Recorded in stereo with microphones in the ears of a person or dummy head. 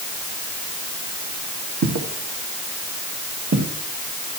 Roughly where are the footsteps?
Right.